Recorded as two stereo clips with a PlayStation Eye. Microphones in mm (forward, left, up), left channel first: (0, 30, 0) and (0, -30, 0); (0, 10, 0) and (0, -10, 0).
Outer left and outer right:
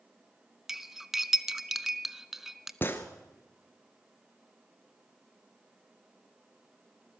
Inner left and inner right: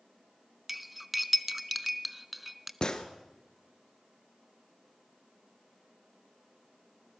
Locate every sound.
0.7 s cutlery clinking: 5° right (ahead or behind), 0.6 m
2.8 s a gunshot: 35° left (ahead or behind), 1.5 m